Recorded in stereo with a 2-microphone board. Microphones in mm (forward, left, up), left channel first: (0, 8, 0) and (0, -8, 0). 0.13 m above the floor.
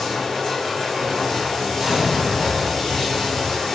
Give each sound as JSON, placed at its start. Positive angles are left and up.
{"t": 0.0, "sound": "running water", "side_deg": 40, "distance_m": 1.6}
{"t": 1.8, "sound": "an explosion", "side_deg": -35, "distance_m": 1.3}